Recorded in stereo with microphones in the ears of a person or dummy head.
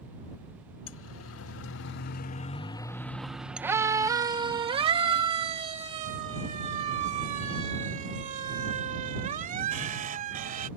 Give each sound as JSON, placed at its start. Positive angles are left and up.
{"t": 0.9, "sound": "a siren", "side_deg": 80}